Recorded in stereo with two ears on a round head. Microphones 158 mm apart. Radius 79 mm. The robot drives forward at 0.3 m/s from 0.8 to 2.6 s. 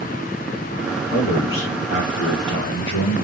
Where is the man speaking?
75° left (ahead or behind), 1.9 m; by 3.2 s 80° left, 1.9 m.